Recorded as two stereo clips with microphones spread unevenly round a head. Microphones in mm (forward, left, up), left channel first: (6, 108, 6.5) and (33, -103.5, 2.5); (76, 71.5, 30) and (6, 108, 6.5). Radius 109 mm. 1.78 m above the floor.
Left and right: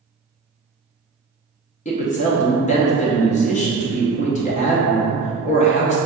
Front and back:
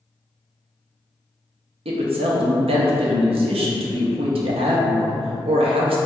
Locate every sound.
1.9 s a woman speaking: 160° left, 0.6 m